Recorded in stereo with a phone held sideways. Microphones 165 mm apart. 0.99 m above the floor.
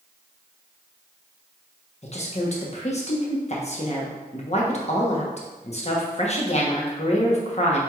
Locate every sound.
2.0 s a woman speaking: 45° left (ahead or behind), 1.0 m